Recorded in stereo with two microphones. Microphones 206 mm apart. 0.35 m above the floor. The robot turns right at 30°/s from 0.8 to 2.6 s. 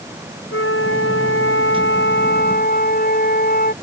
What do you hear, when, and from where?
0.5 s a flute: 80° left; by 3.7 s 135° left